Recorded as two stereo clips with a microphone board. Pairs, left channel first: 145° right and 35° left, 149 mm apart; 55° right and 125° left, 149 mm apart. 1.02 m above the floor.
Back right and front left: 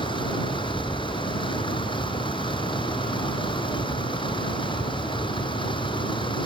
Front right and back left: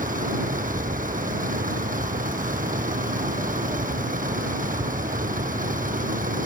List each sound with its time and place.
0.0 s a vehicle: 155° left